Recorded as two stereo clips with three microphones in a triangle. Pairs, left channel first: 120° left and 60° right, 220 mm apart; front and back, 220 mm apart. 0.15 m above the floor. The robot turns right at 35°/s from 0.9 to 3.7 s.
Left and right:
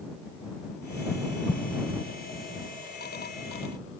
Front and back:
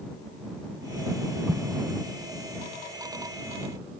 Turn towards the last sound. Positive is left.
turn(degrees=165)